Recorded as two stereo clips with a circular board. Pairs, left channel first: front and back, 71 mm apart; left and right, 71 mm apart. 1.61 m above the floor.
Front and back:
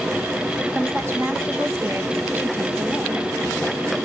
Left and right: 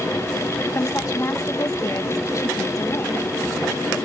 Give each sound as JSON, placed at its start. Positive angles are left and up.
{"t": 0.8, "sound": "a woman speaking", "azimuth_deg": 125, "distance_m": 1.4}